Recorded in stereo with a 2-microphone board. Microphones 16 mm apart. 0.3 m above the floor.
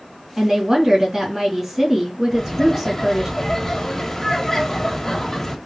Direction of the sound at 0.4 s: 20° right (ahead or behind).